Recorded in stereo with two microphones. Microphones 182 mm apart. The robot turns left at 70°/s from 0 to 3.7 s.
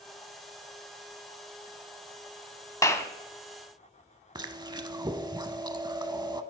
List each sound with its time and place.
2.8 s a clap: 20° left (ahead or behind), 0.8 m; by 3.1 s 15° left (ahead or behind), 0.8 m
4.3 s chewing: 25° right (ahead or behind), 0.5 m